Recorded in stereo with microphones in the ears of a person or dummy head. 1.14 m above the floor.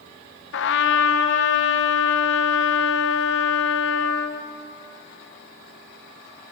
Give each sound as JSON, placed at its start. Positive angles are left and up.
{"t": 0.5, "sound": "a trumpet", "side_deg": 65, "distance_m": 0.7}